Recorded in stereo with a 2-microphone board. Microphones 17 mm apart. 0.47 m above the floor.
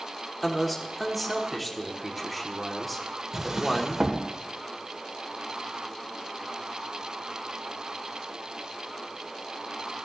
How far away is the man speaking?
About 1.2 m.